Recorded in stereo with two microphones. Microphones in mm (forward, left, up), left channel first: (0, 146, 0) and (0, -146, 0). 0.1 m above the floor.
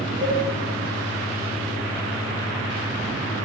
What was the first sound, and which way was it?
A cowbell, 45° right (ahead or behind).